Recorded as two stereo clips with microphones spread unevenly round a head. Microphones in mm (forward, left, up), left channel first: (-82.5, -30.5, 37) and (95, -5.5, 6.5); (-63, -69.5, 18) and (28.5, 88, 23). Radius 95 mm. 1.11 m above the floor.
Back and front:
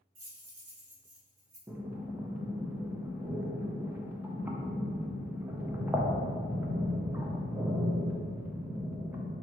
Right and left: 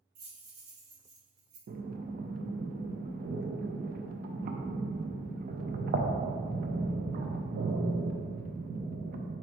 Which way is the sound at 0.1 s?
25° left.